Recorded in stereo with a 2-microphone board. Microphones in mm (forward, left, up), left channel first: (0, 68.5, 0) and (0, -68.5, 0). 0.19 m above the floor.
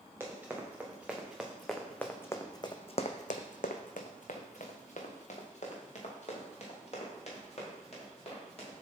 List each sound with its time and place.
0.2 s running footsteps: 15° right (ahead or behind), 1.8 m; by 8.7 s 45° left (ahead or behind), 3.5 m